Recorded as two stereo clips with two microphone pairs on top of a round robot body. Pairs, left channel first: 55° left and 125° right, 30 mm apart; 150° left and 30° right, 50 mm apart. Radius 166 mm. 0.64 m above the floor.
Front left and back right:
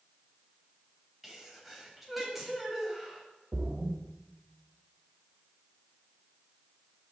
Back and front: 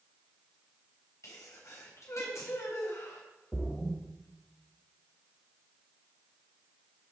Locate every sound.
1.2 s a sneeze: 150° left, 4 m
3.5 s a splash: 135° right, 1.4 m